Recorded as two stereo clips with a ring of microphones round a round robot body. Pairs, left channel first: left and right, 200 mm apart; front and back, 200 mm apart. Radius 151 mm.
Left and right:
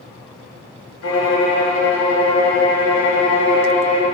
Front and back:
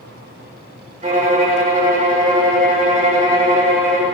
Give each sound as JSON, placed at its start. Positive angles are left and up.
{"t": 1.0, "sound": "a violin", "azimuth_deg": 125, "distance_m": 1.9}